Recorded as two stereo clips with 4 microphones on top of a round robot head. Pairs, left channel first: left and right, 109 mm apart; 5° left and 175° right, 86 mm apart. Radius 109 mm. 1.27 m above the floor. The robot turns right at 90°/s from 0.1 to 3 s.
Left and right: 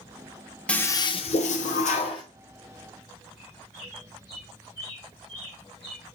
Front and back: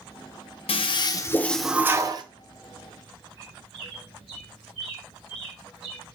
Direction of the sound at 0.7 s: 10° left.